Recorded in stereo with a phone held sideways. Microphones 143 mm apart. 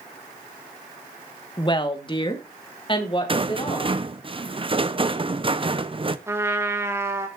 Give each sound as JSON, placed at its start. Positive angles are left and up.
{"t": 1.6, "sound": "a woman speaking", "side_deg": 30, "distance_m": 1.3}
{"t": 3.3, "sound": "a rattle", "side_deg": -35, "distance_m": 0.7}
{"t": 6.3, "sound": "a trumpet", "side_deg": -15, "distance_m": 1.5}